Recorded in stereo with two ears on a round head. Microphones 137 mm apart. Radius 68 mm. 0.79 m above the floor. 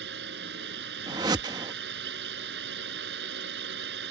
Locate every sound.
0.0 s a drone: 80° right
1.1 s a whoosh: 25° right (ahead or behind)